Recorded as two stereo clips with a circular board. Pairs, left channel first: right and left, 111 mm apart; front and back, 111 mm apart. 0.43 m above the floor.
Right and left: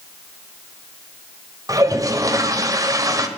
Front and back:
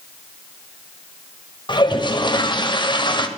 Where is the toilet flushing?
40° left, 1.5 m.